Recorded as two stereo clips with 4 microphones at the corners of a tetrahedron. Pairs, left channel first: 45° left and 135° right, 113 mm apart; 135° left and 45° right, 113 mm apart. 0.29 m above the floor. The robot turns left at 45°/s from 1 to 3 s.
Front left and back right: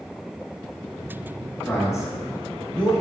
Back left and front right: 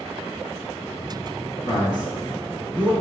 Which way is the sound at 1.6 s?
115° left.